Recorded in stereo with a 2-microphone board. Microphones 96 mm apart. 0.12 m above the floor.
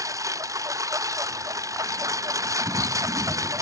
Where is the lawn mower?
35° right (ahead or behind).